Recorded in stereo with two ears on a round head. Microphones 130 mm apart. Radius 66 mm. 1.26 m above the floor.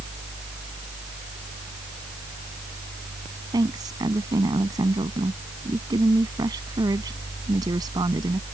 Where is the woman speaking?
30° right (ahead or behind).